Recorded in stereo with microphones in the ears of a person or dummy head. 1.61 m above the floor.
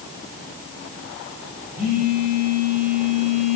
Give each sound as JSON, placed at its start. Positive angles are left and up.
{"t": 1.8, "sound": "a phone buzzing", "side_deg": -45, "distance_m": 8.5}